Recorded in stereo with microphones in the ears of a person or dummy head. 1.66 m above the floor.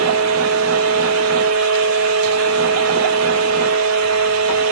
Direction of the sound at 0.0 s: 85° right.